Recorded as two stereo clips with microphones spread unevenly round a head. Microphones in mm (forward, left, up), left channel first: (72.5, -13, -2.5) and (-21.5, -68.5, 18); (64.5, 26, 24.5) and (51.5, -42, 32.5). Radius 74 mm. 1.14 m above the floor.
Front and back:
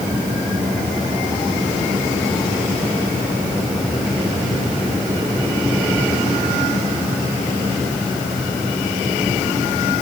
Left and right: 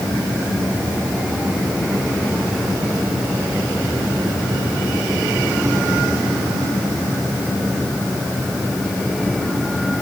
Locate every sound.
Only background noise.